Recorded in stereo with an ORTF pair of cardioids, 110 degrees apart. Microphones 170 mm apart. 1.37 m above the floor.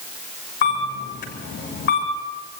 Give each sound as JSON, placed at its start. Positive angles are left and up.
{"t": 0.6, "sound": "a camera shutter", "azimuth_deg": 70, "distance_m": 7.5}